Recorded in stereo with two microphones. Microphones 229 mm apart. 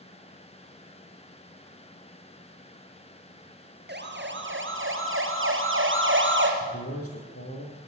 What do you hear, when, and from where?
3.9 s a siren: 45° right (ahead or behind), 2 m; by 6.5 s 55° right (ahead or behind), 3 m
6.6 s a man speaking: 75° left (ahead or behind), 6 m